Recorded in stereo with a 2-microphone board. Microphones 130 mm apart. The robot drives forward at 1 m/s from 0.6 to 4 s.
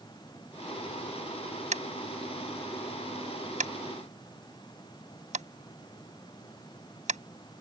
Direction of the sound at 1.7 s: 65° right (ahead or behind).